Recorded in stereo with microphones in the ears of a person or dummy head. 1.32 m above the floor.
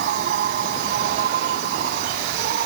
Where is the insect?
55° right (ahead or behind).